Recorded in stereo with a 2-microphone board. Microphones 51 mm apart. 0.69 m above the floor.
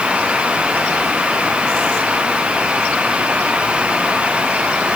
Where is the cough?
I don't hear a cough.